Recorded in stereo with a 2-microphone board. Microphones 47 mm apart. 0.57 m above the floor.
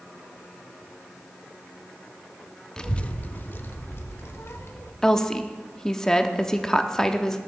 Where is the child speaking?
15° left (ahead or behind), 0.6 m; by 4.9 s 65° left (ahead or behind), 1.8 m.